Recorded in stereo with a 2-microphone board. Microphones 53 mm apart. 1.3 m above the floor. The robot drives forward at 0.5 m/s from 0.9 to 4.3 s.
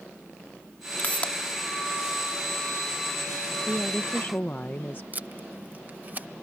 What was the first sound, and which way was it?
A pop, 30° left (ahead or behind).